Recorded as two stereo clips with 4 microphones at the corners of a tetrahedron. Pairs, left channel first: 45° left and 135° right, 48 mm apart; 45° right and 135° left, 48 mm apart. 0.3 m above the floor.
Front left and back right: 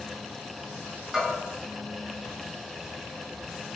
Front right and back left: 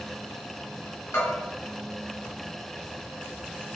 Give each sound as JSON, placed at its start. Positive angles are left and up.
{"t": 1.1, "sound": "a bell", "azimuth_deg": -55, "distance_m": 1.6}